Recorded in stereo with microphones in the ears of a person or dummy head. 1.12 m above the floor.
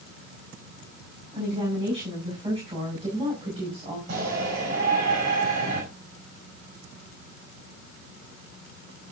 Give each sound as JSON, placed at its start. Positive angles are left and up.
{"t": 1.3, "sound": "a woman speaking", "side_deg": -35, "distance_m": 7.0}
{"t": 4.1, "sound": "a shout", "side_deg": -50, "distance_m": 5.5}